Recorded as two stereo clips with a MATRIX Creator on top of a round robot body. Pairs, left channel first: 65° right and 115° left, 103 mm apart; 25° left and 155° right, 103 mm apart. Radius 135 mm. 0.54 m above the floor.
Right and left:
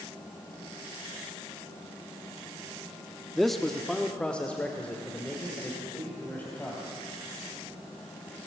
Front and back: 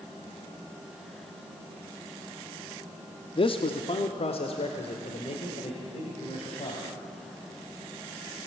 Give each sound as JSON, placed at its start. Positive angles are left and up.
{"t": 3.4, "sound": "a man speaking", "azimuth_deg": 20, "distance_m": 1.1}